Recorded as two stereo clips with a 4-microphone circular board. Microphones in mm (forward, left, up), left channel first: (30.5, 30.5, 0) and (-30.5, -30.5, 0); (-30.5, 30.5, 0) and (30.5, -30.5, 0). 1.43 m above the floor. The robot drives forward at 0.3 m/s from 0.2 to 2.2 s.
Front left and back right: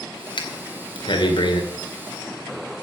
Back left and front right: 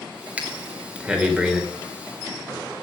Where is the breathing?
30° left, 2.5 m; by 1.6 s 35° left, 2 m.